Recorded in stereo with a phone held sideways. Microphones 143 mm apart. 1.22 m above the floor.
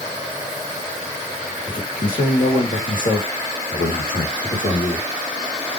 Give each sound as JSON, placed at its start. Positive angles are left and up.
{"t": 1.7, "sound": "a man speaking", "side_deg": 70, "distance_m": 2.5}